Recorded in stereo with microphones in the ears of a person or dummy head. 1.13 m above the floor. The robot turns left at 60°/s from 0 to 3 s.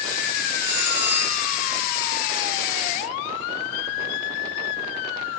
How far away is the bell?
About 4 m.